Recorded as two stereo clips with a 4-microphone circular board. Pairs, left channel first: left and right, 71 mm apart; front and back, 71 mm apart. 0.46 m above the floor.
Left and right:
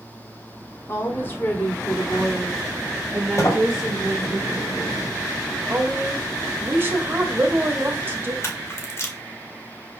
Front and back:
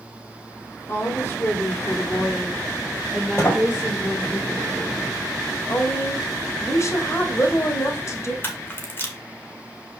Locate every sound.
0.9 s a woman speaking: 45° left, 2 m; by 4.4 s 115° right, 1.9 m
3.4 s a sliding door: 50° left, 2.5 m
5.7 s a woman speaking: 35° right, 1.9 m
8.4 s a camera shutter: 50° left, 1.6 m